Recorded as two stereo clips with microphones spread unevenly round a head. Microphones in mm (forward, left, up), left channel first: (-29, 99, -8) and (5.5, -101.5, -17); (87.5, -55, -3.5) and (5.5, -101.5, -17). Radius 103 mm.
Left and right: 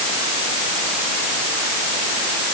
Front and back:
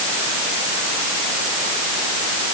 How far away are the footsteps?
I don't hear footsteps.